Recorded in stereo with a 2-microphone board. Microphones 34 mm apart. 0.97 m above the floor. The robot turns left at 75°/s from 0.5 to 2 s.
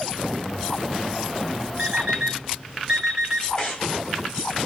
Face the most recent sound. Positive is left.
turn(degrees=20)  # may be behind; listen again after turning